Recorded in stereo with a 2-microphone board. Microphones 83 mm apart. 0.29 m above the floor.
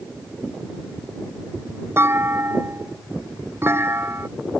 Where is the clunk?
30° right (ahead or behind).